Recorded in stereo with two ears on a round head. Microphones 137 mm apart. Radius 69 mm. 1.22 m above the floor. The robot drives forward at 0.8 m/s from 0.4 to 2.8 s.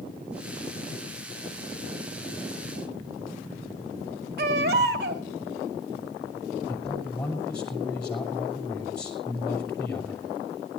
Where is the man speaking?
5° left (ahead or behind), 6 m.